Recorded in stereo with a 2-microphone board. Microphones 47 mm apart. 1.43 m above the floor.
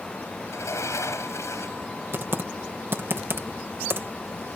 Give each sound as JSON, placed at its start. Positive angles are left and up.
{"t": 0.5, "sound": "a sliding door", "side_deg": 80}
{"t": 2.1, "sound": "typing on a keyboard", "side_deg": -55}